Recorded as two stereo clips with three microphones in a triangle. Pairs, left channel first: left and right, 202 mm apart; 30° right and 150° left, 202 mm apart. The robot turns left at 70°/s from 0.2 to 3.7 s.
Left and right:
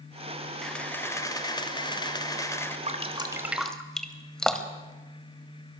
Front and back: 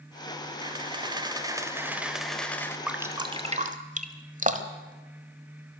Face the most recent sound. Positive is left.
turn(degrees=175)